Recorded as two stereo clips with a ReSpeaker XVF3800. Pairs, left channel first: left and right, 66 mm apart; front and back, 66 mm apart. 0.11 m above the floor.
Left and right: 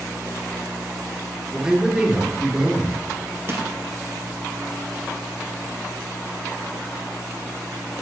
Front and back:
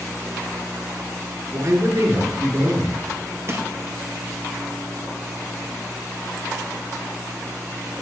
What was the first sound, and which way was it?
A man speaking, 165° right.